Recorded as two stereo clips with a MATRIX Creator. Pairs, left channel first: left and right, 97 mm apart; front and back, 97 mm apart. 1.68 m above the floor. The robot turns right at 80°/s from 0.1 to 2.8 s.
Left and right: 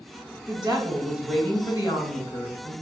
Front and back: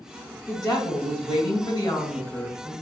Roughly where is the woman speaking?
Ahead right.